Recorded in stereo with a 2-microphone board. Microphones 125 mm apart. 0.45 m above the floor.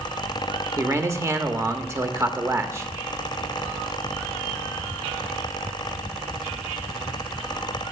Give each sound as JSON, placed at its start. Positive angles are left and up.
{"t": 0.8, "sound": "a man speaking", "side_deg": -25, "distance_m": 0.9}